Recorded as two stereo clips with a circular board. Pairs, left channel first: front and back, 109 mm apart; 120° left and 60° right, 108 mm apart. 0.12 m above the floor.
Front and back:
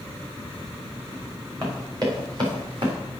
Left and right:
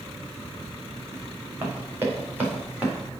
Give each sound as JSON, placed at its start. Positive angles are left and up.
{"t": 1.6, "sound": "running footsteps", "azimuth_deg": -125, "distance_m": 5.0}